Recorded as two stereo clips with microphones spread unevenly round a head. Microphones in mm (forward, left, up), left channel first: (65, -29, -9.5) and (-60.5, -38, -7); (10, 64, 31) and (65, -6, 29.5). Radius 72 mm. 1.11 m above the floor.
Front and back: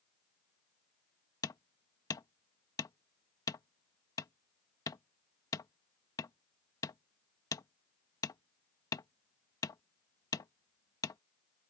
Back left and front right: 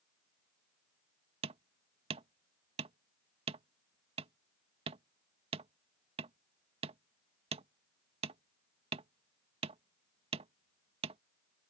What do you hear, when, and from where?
1.4 s hammering: 60° right